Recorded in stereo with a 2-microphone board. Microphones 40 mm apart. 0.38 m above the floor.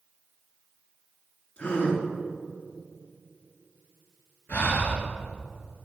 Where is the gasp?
25° left (ahead or behind), 2.5 m.